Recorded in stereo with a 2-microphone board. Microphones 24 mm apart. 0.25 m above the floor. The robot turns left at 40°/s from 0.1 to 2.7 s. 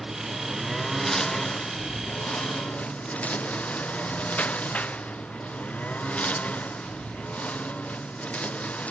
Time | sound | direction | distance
0.0 | a lawn mower | 15° right (ahead or behind) | ?